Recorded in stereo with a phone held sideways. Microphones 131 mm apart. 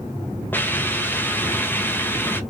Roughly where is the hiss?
Centre.